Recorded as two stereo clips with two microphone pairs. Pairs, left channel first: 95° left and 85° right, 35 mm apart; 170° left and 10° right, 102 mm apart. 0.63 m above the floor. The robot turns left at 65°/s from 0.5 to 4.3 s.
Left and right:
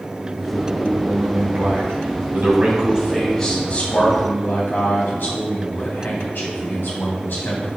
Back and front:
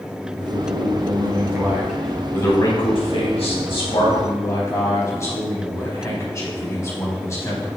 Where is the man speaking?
5° right, 3.5 m; by 7.7 s 110° left, 3.5 m.